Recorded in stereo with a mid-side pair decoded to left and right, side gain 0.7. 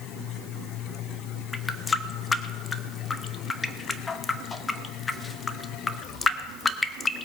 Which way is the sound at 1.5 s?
20° left.